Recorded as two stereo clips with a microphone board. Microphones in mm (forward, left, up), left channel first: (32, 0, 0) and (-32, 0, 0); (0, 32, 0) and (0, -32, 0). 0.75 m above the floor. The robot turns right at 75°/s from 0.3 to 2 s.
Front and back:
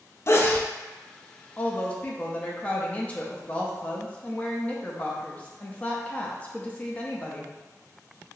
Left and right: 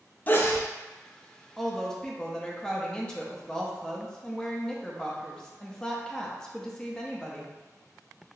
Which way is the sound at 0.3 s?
35° left.